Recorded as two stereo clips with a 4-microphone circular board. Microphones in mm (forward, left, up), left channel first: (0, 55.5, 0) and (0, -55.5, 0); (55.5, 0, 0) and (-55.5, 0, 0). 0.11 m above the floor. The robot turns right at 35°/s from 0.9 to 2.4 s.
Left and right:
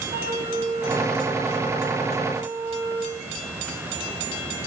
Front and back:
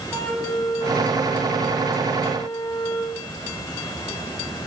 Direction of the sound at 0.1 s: 85° right.